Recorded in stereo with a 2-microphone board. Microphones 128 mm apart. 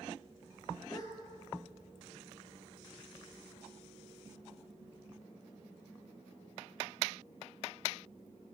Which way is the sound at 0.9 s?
30° left (ahead or behind).